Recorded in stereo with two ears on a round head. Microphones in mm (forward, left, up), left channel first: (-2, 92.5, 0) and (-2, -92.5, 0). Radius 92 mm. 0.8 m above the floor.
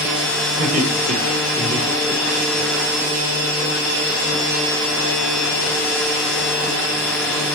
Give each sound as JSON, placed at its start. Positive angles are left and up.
{"t": 0.6, "sound": "laughter", "side_deg": -45, "distance_m": 4.0}